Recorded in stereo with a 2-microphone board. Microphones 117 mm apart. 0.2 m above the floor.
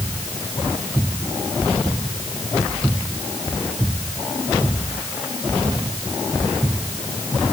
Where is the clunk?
I don't hear a clunk.